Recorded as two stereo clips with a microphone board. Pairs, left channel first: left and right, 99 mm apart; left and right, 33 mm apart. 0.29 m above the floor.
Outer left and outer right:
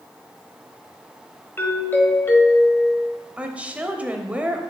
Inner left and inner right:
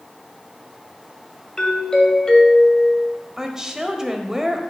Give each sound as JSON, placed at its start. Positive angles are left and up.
{"t": 1.6, "sound": "a doorbell", "side_deg": 20, "distance_m": 1.6}
{"t": 3.4, "sound": "a woman speaking", "side_deg": -15, "distance_m": 0.9}